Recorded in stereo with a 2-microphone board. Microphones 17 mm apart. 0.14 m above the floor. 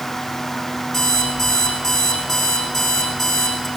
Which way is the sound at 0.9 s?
25° left (ahead or behind).